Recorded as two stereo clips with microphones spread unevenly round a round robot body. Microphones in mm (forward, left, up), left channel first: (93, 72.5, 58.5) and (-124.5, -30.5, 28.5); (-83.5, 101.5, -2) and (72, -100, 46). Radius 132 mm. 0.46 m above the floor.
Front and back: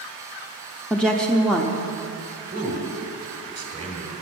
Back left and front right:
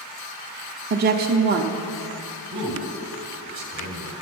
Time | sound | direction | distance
0.9 | a woman speaking | 70° right | 0.7 m
2.5 | a man speaking | 90° right | 1.8 m